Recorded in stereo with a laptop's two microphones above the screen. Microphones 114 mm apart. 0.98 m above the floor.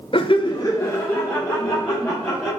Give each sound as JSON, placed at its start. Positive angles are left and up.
{"t": 0.1, "sound": "laughter", "side_deg": 50, "distance_m": 0.5}